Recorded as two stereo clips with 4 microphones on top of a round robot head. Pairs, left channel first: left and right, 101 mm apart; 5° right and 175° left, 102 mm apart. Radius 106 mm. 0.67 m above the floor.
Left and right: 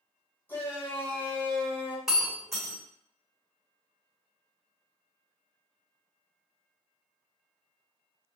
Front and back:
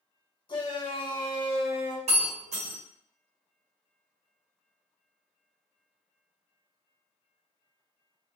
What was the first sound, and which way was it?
A shout, 25° left.